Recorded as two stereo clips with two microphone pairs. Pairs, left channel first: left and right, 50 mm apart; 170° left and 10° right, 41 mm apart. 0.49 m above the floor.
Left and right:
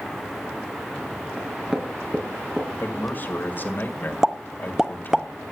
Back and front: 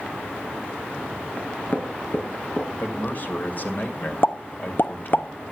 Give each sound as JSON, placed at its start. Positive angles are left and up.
{"t": 1.4, "sound": "knocking", "azimuth_deg": -160, "distance_m": 4.0}
{"t": 2.8, "sound": "a man speaking", "azimuth_deg": 135, "distance_m": 2.0}
{"t": 4.2, "sound": "a pop", "azimuth_deg": -170, "distance_m": 0.6}